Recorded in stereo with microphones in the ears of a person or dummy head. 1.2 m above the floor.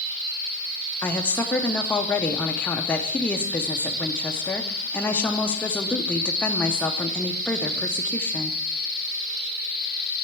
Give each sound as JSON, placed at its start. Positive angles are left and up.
{"t": 1.0, "sound": "a woman speaking", "side_deg": 10, "distance_m": 0.6}